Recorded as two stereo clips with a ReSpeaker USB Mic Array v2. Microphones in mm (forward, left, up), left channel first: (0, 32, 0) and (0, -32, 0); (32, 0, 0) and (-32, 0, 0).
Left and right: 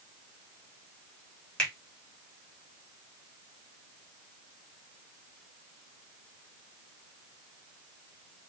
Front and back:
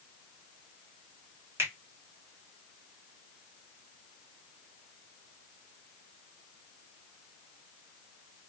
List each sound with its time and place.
1.6 s a finger snap: 160° left, 1.3 m